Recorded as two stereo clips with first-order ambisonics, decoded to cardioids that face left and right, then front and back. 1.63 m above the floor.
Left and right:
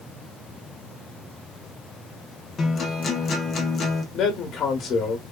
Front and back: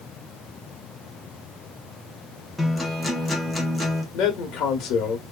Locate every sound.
2.6 s a guitar: 75° left, 0.6 m
4.1 s a man speaking: 40° left, 1.0 m